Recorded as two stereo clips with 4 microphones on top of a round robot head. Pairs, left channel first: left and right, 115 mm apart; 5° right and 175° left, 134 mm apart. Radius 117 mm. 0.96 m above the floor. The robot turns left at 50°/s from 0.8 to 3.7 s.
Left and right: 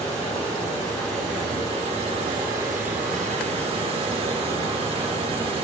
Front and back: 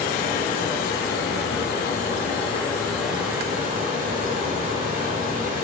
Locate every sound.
0.0 s running water: 20° left, 2 m; by 5.7 s 125° right, 2 m